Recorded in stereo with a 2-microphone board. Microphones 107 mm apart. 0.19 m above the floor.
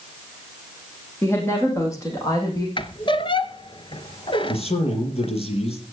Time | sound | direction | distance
1.2 | a woman speaking | 20° left (ahead or behind) | 8 m
2.8 | a squeak | 50° left (ahead or behind) | 0.8 m
4.4 | a man speaking | 70° left (ahead or behind) | 5.5 m